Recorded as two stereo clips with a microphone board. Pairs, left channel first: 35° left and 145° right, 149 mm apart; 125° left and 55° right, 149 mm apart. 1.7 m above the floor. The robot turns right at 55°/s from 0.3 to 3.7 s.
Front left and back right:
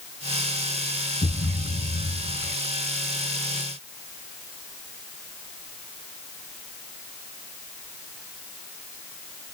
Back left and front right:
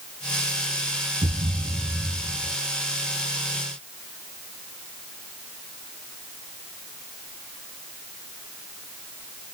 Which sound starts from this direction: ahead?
A thud, at 1.2 s.